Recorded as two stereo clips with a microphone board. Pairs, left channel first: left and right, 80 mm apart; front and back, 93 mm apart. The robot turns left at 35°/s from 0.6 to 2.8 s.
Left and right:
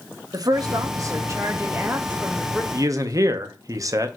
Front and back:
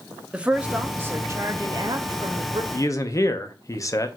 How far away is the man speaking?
About 0.7 m.